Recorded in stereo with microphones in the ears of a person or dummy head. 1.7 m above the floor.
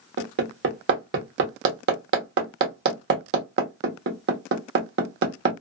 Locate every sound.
0.2 s hammering: 55° right (ahead or behind), 1.1 m